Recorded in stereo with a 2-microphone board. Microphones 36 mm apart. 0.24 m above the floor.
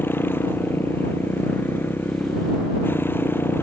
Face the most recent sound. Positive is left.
turn(degrees=85)